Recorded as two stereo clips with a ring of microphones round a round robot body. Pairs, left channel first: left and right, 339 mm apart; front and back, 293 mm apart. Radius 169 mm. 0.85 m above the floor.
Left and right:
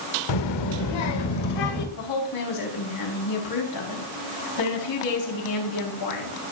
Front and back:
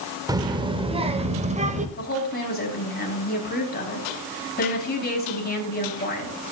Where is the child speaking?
100° left, 1.6 m; by 1.9 s 115° left, 2.5 m.